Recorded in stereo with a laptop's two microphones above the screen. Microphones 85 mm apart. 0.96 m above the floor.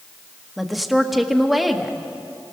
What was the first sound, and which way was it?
A woman speaking, centre (ahead or behind).